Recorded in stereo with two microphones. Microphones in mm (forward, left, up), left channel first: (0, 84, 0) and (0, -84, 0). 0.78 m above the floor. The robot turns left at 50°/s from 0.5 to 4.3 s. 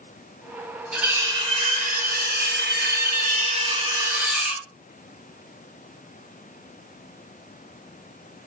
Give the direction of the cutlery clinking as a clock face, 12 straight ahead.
12 o'clock.